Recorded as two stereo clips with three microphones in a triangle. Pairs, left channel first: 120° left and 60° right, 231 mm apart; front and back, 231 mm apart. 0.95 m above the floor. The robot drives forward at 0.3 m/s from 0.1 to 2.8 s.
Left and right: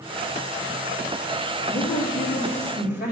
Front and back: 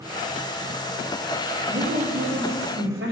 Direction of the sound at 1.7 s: 160° left.